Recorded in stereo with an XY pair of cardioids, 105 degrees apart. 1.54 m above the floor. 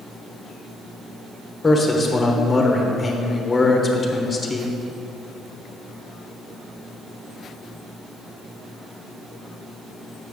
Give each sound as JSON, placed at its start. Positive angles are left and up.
{"t": 1.6, "sound": "a man speaking", "azimuth_deg": 25, "distance_m": 1.1}